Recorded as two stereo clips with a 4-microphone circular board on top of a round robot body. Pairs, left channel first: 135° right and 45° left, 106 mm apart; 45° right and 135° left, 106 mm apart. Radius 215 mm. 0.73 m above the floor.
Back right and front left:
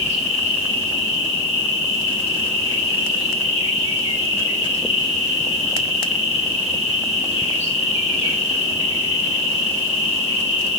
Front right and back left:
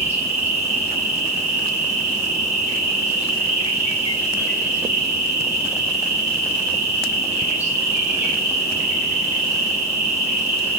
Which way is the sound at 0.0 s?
145° right.